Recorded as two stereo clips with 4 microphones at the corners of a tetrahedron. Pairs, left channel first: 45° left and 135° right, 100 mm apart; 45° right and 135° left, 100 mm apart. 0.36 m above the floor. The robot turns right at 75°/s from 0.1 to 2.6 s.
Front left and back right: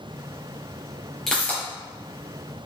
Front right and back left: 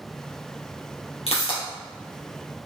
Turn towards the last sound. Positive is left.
turn(degrees=60)